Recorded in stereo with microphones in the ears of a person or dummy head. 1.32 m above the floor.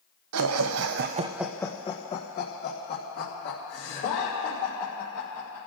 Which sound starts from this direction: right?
Laughter, at 0.3 s.